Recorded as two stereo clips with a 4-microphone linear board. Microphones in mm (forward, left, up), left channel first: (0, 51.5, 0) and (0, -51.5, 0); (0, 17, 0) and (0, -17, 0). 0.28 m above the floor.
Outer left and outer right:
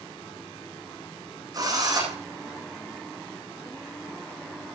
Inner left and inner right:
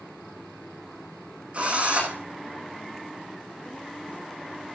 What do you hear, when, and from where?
1.5 s a drill: 40° right (ahead or behind), 10 m